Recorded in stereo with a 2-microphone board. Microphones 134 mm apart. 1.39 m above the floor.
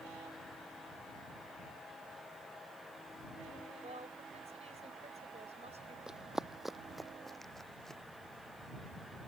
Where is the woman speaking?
50° right (ahead or behind).